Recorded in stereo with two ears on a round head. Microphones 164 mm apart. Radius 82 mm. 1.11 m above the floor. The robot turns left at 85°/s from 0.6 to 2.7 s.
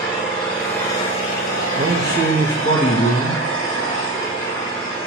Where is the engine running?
175° right, 4 m; by 5.1 s 5° left, 4 m.